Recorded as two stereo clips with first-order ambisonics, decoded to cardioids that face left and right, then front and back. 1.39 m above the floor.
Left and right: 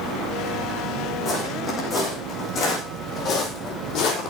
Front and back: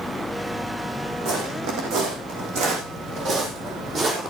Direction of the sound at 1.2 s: 160° left.